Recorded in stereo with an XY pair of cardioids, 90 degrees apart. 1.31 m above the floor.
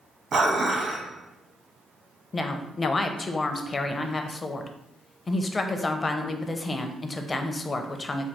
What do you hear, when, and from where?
0.3 s dishes clattering: 60° right, 1.0 m
2.3 s a woman speaking: 35° left, 0.6 m